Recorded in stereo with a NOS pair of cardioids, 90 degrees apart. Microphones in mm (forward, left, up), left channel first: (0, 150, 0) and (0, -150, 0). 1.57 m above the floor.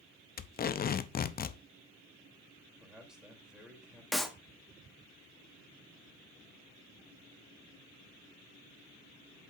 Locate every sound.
0.4 s tape being pulled: 30° left, 0.6 m
2.8 s a man speaking: straight ahead, 3 m
4.1 s a clap: straight ahead, 1.0 m